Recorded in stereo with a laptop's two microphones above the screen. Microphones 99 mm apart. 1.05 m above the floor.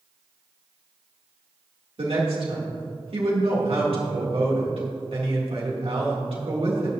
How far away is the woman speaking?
About 2.5 m.